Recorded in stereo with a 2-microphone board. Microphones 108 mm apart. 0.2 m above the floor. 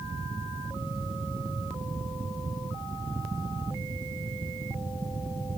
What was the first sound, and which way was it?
Only background noise.